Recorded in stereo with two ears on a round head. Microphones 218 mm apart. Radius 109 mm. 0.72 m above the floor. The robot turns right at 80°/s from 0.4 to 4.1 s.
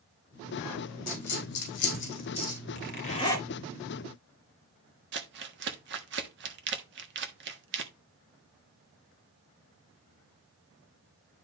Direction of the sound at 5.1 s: 50° right (ahead or behind).